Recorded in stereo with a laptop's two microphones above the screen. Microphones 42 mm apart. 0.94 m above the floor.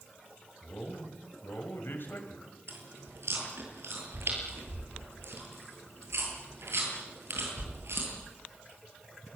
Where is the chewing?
80° right, 9 m.